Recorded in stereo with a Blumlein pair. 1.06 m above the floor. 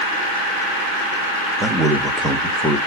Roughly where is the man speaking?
Ahead.